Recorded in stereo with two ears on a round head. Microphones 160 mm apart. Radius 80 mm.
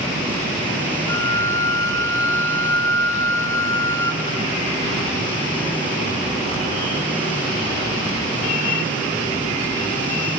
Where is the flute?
15° left (ahead or behind), 1.6 m.